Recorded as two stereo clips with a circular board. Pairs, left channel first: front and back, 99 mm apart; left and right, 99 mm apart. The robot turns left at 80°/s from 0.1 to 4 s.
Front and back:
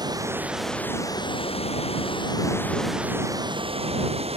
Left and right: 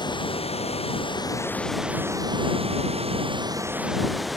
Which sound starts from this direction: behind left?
Running water, at 0.0 s.